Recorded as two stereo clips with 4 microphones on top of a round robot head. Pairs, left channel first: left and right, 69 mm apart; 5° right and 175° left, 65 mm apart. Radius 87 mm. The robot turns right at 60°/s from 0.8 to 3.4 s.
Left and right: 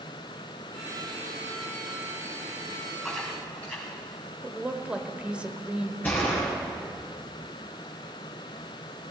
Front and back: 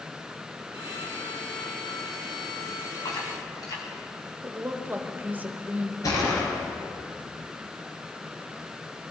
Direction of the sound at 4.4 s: 150° right.